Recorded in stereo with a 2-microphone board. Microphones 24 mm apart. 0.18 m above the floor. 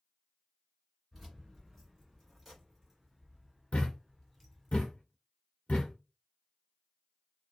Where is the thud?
55° left (ahead or behind), 0.9 m.